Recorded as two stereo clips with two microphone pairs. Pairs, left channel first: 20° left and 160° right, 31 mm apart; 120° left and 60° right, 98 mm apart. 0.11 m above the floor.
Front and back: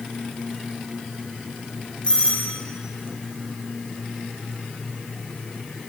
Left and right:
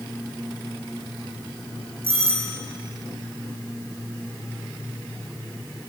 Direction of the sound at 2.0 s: 40° right.